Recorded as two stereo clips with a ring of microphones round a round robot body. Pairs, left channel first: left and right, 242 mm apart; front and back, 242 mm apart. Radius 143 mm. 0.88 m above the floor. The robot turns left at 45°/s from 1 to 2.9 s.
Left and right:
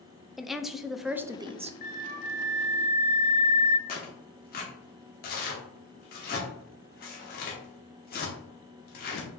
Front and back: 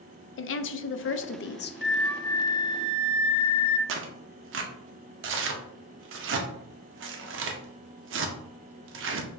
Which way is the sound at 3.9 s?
145° left.